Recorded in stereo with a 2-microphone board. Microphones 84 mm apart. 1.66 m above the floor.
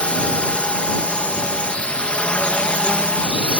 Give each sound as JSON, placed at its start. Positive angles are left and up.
{"t": 0.0, "sound": "a drone", "side_deg": 15}